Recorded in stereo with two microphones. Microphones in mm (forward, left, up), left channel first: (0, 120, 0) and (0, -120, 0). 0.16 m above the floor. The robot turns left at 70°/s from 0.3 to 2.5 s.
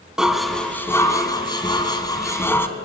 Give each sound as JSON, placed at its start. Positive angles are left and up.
{"t": 0.2, "sound": "dishes clattering", "side_deg": 0, "distance_m": 0.7}